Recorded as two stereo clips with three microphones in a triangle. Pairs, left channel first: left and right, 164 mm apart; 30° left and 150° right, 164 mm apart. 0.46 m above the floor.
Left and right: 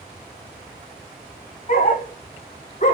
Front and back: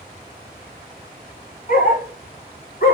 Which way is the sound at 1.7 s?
60° left.